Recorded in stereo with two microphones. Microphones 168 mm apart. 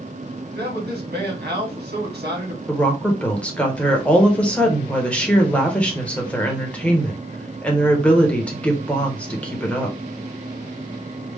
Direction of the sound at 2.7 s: 5° left (ahead or behind).